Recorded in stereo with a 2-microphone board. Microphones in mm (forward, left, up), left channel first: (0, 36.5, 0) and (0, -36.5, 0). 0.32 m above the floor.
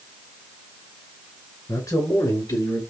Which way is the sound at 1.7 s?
50° left (ahead or behind).